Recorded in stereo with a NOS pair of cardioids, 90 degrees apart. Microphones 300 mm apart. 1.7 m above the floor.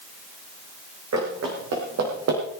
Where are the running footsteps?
60° right, 8 m; by 2.4 s 55° right, 6 m.